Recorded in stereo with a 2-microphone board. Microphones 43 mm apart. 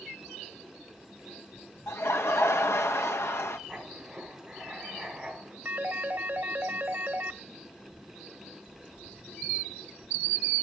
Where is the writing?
Centre (ahead or behind), 5 m.